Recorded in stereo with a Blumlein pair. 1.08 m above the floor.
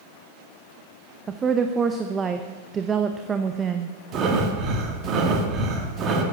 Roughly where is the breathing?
Ahead right.